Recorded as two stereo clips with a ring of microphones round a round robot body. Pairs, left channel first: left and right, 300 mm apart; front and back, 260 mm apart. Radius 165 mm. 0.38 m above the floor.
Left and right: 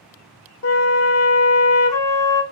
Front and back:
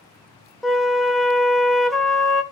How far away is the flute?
About 0.8 m.